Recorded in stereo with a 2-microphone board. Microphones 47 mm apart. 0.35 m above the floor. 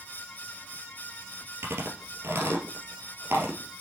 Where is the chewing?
65° right (ahead or behind), 2.5 m.